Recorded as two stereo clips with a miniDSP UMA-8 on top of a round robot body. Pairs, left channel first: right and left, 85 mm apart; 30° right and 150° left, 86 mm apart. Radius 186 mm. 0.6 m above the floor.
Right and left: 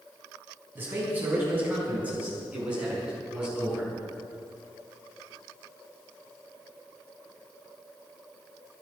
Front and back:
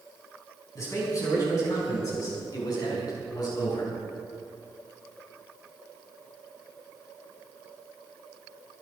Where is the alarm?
No alarm in this recording.